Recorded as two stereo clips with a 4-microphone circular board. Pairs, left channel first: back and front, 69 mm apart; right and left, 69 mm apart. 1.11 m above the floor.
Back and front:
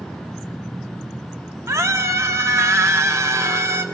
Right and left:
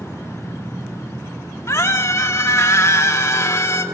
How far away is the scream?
About 2 m.